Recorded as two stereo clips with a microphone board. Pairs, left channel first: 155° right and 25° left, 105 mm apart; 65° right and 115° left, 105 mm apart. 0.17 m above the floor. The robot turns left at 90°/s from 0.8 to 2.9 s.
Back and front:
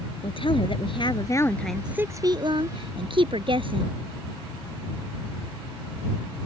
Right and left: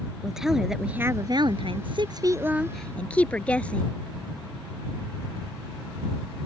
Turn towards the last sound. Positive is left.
turn(degrees=10)